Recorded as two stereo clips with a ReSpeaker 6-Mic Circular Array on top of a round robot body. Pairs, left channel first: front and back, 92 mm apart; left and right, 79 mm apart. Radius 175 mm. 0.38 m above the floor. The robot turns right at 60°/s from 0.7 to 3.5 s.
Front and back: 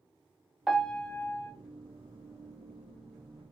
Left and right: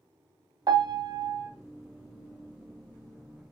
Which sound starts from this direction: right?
A piano, at 0.7 s.